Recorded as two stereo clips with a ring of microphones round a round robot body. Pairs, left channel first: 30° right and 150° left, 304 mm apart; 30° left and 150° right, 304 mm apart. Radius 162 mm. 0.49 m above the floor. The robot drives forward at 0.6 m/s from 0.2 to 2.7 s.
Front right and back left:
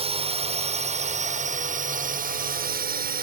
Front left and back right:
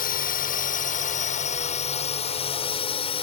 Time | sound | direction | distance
0.0 | a drone | 85° left | ?